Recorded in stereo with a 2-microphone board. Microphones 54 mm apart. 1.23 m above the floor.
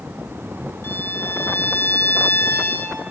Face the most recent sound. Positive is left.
turn(degrees=45)  # may be behind; listen again after turning